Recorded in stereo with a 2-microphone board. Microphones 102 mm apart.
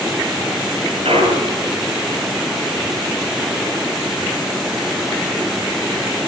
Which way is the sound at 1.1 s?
75° right (ahead or behind).